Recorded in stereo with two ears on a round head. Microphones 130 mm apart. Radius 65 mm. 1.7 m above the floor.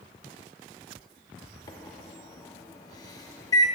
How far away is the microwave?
About 0.8 m.